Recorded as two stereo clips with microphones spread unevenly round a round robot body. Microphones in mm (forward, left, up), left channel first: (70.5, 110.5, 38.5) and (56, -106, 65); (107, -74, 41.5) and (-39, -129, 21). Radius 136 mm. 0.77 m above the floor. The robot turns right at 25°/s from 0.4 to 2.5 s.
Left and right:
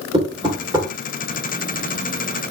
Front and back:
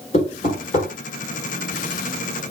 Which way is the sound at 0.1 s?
30° right.